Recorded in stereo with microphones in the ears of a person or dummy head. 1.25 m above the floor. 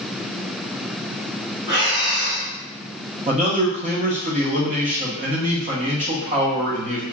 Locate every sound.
1.7 s breathing: 60° right (ahead or behind), 1.2 m
3.3 s a man speaking: 35° right (ahead or behind), 0.7 m